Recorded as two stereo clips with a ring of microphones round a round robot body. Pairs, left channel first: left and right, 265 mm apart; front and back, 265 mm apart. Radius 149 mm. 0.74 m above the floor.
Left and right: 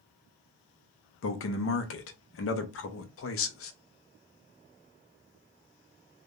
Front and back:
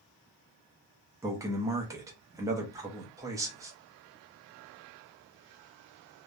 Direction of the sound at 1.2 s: 105° left.